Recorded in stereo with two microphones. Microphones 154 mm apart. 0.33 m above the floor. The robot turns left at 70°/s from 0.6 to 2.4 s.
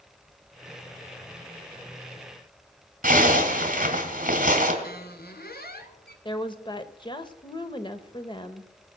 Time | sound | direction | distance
3.0 | a zipper | 55° right (ahead or behind) | 2.5 m
4.8 | a squeak | 75° left (ahead or behind) | 1.1 m
6.2 | a woman speaking | 30° left (ahead or behind) | 0.9 m